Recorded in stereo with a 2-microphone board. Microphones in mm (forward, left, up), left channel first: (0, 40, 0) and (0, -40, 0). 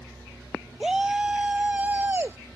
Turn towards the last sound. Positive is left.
turn(degrees=-30)  # may be behind; listen again after turning